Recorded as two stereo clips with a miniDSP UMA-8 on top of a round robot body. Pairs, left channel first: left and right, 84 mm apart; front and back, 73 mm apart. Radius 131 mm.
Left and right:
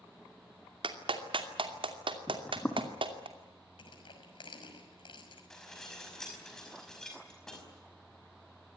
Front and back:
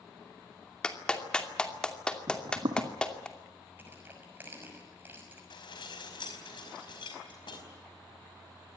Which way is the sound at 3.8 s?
115° left.